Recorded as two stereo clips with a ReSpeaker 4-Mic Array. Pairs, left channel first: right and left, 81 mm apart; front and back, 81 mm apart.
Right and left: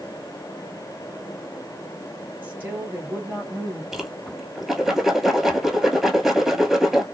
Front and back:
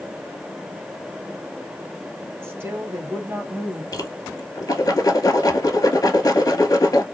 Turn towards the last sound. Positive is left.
turn(degrees=5)